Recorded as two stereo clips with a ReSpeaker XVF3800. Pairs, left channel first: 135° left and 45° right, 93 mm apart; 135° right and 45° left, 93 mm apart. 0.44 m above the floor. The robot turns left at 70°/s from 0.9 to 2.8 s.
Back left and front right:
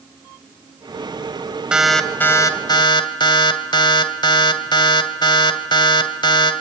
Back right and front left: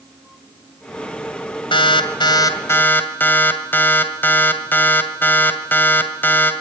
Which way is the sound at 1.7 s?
125° right.